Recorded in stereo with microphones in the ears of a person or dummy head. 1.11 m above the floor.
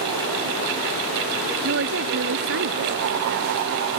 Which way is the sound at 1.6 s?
70° right (ahead or behind).